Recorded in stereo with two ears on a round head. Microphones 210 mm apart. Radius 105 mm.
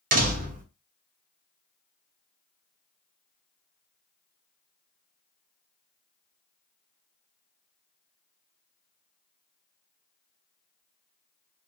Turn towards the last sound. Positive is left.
turn(degrees=-35)  # may be behind; listen again after turning